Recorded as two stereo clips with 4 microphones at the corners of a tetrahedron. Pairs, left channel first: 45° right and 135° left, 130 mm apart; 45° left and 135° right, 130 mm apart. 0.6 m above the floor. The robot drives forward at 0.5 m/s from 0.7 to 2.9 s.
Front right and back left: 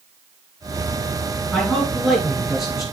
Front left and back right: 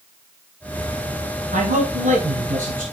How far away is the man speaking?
About 5 m.